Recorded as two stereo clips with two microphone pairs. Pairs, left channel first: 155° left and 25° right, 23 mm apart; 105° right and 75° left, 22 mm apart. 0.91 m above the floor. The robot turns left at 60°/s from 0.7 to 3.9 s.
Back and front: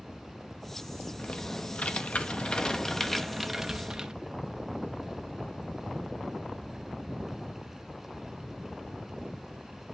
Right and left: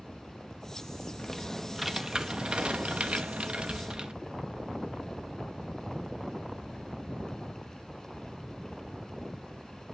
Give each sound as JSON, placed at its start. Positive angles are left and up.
{"t": 1.2, "sound": "typing on a keyboard", "azimuth_deg": -165, "distance_m": 0.9}